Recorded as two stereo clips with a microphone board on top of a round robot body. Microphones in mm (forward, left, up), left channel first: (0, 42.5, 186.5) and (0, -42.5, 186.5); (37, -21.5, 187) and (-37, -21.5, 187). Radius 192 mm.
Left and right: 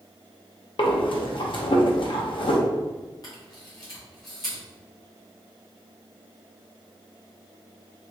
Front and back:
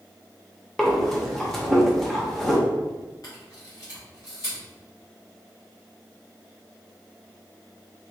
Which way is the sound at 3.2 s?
45° left.